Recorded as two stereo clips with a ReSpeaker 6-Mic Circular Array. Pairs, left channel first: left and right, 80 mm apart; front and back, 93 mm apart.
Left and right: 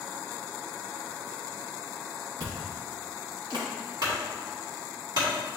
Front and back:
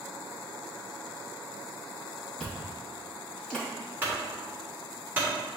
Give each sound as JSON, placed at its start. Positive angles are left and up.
{"t": 2.4, "sound": "chewing", "azimuth_deg": -80, "distance_m": 2.0}
{"t": 4.0, "sound": "a clunk", "azimuth_deg": -110, "distance_m": 2.5}